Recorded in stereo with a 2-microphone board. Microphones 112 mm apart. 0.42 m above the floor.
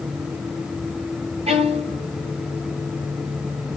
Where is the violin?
70° right (ahead or behind), 2.5 m.